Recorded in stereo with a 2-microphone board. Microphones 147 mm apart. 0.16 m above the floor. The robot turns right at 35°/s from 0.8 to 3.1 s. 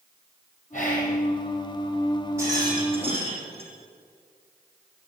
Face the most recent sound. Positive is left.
turn(degrees=-45)  # may be behind; listen again after turning